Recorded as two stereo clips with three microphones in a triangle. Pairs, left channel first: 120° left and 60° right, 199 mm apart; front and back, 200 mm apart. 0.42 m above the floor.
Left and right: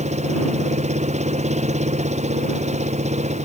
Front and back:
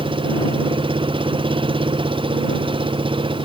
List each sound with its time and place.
0.0 s an engine running: 115° right